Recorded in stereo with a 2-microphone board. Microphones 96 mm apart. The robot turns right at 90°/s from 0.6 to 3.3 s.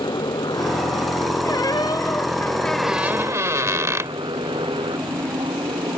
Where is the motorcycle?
55° left; by 6.0 s 65° right.